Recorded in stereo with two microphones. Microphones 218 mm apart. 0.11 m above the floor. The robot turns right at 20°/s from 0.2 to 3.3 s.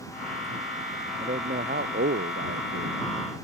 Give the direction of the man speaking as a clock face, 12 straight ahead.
5 o'clock.